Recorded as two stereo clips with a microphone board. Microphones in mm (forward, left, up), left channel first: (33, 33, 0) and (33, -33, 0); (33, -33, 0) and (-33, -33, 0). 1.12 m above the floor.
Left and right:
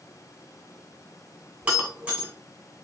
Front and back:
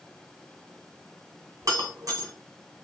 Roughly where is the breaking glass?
Behind.